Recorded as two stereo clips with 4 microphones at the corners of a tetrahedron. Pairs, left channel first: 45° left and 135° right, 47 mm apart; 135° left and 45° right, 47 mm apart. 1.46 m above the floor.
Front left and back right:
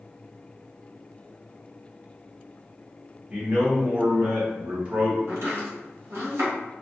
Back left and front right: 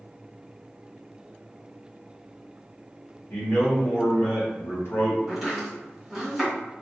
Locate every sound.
3.3 s a man speaking: 165° left, 1.5 m
5.3 s chopping: 135° right, 1.7 m